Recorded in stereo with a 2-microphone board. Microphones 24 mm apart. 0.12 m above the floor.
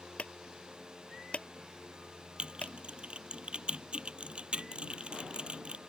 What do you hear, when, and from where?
0.2 s a clunk: 60° left (ahead or behind)
2.4 s typing on a keyboard: 50° right (ahead or behind)